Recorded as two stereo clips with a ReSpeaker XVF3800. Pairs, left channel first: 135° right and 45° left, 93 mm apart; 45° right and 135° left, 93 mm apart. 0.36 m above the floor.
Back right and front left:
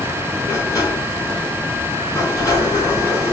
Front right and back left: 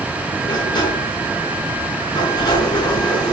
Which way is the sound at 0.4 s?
80° right.